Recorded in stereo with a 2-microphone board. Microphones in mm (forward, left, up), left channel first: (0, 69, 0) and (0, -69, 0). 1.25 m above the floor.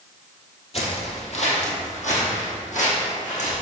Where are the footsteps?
50° left (ahead or behind), 1.9 m; by 3.6 s 70° left (ahead or behind), 3.5 m.